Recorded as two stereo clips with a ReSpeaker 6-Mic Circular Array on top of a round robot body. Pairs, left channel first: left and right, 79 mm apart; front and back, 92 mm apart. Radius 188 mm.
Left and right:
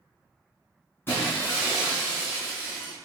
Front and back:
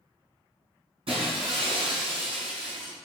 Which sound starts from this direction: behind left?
Breaking glass, at 1.1 s.